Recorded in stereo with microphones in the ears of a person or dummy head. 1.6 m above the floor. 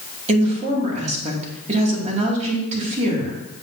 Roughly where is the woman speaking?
Right.